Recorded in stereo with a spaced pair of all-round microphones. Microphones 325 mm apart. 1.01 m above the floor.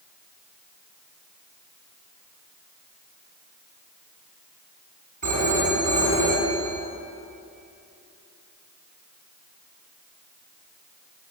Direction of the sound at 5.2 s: 65° right (ahead or behind).